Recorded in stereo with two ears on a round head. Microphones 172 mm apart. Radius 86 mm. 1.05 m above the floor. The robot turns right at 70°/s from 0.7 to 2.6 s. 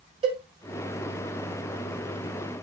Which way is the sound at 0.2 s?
30° right (ahead or behind).